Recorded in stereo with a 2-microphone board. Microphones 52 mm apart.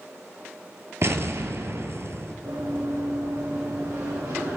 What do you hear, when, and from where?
1.0 s an explosion: 60° right (ahead or behind), 0.6 m
2.5 s running footsteps: 70° right (ahead or behind), 2.5 m; by 4.6 s 80° right, 3.5 m